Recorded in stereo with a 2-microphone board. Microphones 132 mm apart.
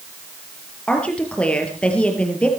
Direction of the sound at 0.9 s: 10° left (ahead or behind).